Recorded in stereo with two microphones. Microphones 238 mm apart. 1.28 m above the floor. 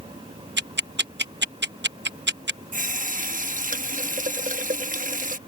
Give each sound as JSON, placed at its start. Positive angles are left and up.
{"t": 0.6, "sound": "ticking", "side_deg": -50}
{"t": 2.7, "sound": "a running tap", "side_deg": -35}